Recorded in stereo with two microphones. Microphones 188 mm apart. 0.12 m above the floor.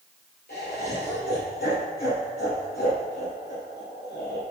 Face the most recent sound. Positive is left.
turn(degrees=55)  # may be behind; listen again after turning